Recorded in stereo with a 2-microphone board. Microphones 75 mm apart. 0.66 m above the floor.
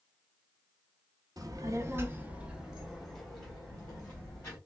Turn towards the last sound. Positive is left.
turn(degrees=15)  # may be behind; listen again after turning